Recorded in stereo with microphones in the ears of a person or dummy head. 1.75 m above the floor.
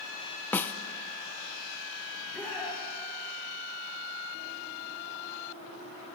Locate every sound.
0.5 s a snare drum: 10° left (ahead or behind), 1.0 m
2.1 s a shout: centre (ahead or behind), 5 m